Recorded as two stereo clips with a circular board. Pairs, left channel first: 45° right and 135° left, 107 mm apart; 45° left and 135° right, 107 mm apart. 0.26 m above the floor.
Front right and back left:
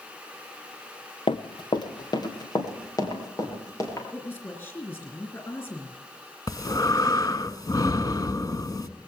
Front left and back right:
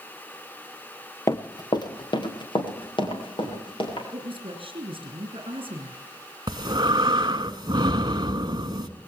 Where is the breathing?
95° right, 0.9 m.